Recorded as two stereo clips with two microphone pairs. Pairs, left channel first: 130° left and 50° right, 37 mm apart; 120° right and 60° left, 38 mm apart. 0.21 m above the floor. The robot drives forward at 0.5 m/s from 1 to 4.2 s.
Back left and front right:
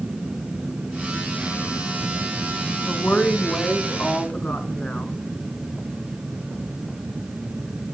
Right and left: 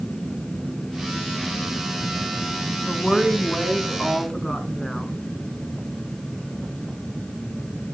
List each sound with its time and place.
2.9 s a woman speaking: 165° left, 2 m; by 5.1 s 170° left, 2.5 m